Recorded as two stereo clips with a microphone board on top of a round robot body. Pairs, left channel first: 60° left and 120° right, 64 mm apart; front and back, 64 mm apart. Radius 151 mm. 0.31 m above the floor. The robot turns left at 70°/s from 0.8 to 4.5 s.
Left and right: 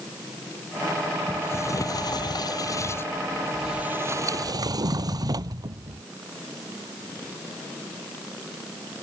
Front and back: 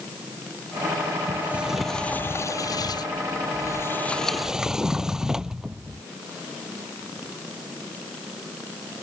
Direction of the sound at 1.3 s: 125° left.